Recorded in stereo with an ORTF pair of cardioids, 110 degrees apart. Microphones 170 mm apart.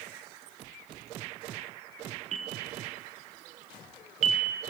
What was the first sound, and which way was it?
A bell, 50° right.